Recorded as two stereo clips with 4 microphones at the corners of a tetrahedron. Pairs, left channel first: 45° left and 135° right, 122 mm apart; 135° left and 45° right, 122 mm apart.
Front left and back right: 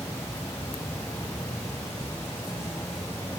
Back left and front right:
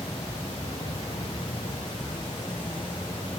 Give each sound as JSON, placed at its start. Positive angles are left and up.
{"t": 0.0, "sound": "an insect", "azimuth_deg": 110, "distance_m": 1.4}